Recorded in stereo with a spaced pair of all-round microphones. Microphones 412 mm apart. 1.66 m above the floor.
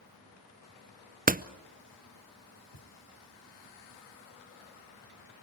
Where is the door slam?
20° right (ahead or behind), 0.7 m.